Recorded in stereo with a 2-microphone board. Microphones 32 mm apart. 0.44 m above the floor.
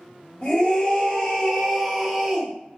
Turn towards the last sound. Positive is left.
turn(degrees=-15)  # may be behind; listen again after turning